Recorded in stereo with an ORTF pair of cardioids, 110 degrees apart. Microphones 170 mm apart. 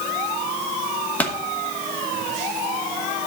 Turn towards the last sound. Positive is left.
turn(degrees=10)